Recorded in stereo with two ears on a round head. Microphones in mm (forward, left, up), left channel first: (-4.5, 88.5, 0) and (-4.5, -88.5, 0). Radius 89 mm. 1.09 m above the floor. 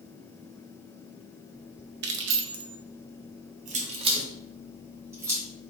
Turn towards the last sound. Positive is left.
turn(degrees=-15)  # may be behind; listen again after turning